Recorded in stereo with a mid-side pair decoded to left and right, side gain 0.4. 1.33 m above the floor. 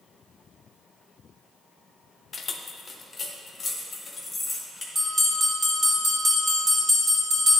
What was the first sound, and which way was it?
Keys jangling, 45° left.